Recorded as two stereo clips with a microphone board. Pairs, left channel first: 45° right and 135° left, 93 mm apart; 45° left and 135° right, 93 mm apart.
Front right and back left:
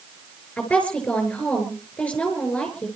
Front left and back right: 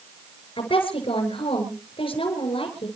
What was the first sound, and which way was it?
A woman speaking, 30° left.